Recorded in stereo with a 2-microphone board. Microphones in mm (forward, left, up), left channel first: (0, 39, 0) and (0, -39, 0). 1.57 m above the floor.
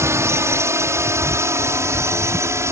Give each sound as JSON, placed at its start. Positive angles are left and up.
{"t": 0.0, "sound": "a drone", "side_deg": -35}